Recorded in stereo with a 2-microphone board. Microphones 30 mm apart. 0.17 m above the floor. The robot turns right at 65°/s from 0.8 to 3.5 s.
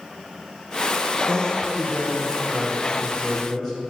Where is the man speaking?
125° right, 3.5 m; by 3.7 s 25° left, 3.5 m.